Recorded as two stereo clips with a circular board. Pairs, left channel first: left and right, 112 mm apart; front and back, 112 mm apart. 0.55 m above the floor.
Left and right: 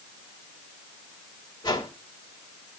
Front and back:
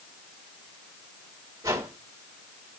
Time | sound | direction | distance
1.6 | a whoosh | 125° left | 2 m